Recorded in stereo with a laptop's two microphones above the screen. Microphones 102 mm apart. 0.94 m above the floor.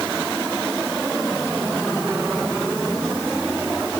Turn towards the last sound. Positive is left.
No sound to turn to.